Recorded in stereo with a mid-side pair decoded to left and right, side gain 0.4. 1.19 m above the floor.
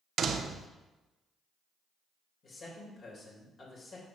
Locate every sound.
0.2 s a door slam: 65° right, 0.6 m
2.4 s a man speaking: 60° left, 2.5 m